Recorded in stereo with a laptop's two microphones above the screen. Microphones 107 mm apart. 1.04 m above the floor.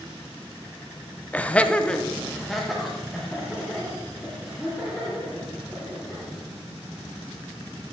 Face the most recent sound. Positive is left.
turn(degrees=-10)  # may be behind; listen again after turning